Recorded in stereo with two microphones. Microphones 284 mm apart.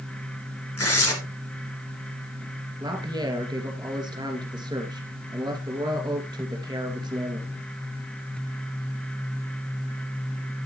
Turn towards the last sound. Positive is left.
turn(degrees=-15)  # may be behind; listen again after turning